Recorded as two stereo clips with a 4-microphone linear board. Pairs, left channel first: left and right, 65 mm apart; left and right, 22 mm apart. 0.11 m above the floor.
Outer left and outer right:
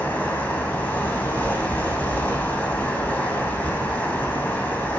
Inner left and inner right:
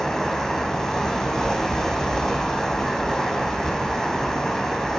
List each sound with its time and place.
0.0 s running water: 25° left (ahead or behind), 4.5 m